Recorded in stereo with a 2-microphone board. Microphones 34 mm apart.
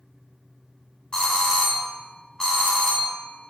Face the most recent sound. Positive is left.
turn(degrees=20)  # may be behind; listen again after turning